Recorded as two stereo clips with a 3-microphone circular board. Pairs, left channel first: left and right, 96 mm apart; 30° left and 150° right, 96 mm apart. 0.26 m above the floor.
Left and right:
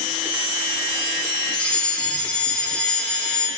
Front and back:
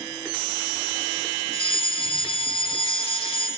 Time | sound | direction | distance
1.5 | a fire alarm | 15° left | 6.5 m